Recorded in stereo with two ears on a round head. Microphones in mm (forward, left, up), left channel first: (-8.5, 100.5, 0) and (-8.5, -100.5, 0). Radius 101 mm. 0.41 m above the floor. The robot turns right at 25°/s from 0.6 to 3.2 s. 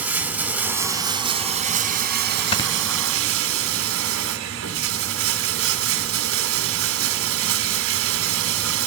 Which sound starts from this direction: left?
Snoring, at 2.5 s.